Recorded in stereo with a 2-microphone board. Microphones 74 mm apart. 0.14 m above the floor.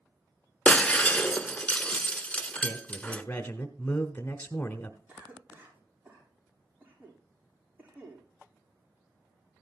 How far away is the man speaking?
About 1.1 m.